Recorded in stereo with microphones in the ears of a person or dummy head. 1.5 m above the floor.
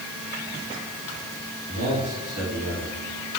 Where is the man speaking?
50° right (ahead or behind), 3.5 m.